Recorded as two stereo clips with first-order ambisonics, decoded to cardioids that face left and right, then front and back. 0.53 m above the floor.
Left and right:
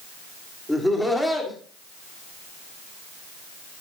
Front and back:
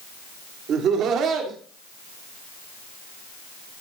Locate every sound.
0.7 s laughter: 175° left, 1.6 m